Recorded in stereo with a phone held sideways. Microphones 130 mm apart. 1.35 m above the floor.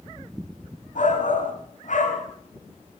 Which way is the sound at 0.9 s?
65° left (ahead or behind).